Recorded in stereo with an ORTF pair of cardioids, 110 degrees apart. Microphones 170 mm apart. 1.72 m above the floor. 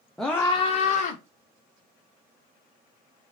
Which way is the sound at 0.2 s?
Straight ahead.